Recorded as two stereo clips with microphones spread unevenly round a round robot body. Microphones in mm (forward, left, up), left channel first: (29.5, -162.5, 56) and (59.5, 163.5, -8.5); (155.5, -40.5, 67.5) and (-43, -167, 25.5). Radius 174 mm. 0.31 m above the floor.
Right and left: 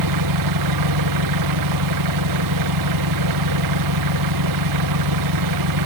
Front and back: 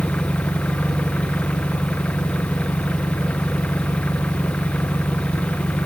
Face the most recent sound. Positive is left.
turn(degrees=120)